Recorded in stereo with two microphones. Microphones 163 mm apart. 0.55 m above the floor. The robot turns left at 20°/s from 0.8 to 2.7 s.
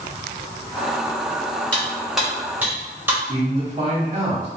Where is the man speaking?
40° right (ahead or behind), 1.1 m.